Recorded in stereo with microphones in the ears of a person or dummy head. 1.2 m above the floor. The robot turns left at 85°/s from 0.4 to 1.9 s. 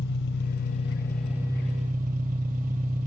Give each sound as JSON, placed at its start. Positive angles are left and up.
{"t": 0.0, "sound": "an engine running", "azimuth_deg": 65, "distance_m": 3.5}